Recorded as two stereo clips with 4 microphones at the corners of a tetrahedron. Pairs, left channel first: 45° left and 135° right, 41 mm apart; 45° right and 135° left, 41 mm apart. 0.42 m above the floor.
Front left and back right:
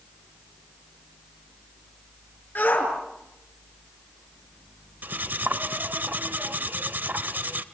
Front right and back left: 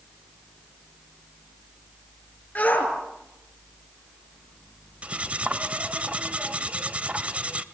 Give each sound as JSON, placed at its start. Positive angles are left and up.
{"t": 2.5, "sound": "a shout", "azimuth_deg": 5, "distance_m": 5.5}
{"t": 5.0, "sound": "cutlery clinking", "azimuth_deg": -170, "distance_m": 0.9}